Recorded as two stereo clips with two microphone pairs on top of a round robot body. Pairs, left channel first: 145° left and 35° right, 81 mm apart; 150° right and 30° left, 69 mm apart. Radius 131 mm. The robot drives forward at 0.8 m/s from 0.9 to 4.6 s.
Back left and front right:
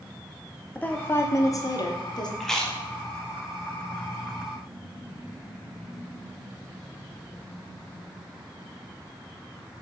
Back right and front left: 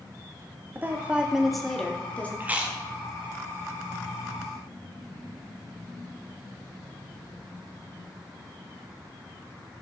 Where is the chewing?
70° left, 1.2 m; by 2.8 s 105° left, 1.1 m.